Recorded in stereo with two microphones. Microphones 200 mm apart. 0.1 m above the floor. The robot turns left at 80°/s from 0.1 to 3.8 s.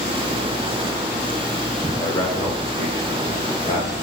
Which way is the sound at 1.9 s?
5° left (ahead or behind).